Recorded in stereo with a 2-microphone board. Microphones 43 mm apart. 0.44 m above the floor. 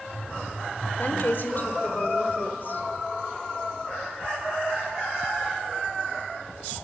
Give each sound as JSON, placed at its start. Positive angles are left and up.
{"t": 1.0, "sound": "a woman speaking", "side_deg": 50, "distance_m": 1.2}